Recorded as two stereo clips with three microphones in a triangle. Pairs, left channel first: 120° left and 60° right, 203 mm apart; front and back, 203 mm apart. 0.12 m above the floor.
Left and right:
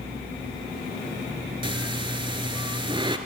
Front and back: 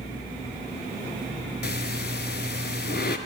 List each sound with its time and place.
1.6 s breathing: straight ahead, 0.6 m